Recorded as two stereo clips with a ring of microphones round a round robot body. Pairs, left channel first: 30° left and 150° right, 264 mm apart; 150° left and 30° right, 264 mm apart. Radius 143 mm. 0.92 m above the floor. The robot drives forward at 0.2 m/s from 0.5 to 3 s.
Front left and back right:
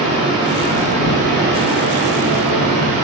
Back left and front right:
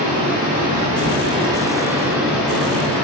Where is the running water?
80° right, 0.8 m; by 3.0 s 125° right, 0.9 m.